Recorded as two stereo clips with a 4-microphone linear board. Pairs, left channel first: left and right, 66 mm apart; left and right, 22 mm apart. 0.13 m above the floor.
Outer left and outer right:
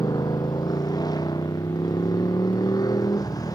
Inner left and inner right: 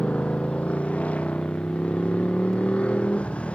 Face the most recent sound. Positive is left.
turn(degrees=70)  # may be behind; listen again after turning